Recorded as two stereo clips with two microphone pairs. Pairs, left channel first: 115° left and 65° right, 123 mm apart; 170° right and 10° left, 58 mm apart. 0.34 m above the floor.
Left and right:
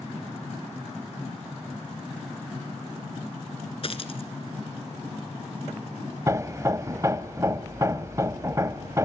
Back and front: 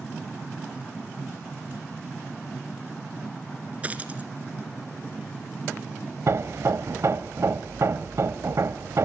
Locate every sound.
3.8 s a dropped coin: 75° left, 1.6 m
6.3 s hammering: straight ahead, 0.8 m